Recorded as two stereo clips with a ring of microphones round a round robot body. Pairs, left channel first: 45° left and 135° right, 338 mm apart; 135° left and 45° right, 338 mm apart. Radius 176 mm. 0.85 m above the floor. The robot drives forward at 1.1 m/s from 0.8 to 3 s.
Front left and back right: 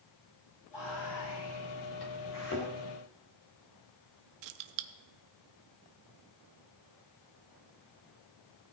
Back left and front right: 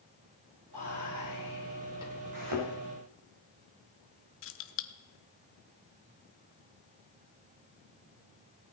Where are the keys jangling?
170° right, 0.7 m.